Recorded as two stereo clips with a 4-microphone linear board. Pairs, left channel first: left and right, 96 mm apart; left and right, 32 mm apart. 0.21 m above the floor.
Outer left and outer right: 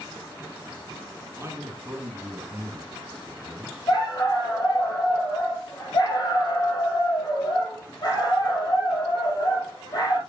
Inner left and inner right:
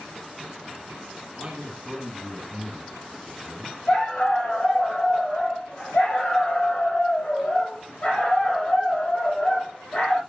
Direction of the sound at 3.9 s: 45° left (ahead or behind).